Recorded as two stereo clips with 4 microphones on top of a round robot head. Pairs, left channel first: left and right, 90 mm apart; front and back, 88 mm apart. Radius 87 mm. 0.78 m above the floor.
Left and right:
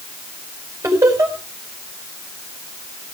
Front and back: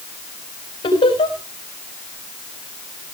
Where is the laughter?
30° right, 5 m.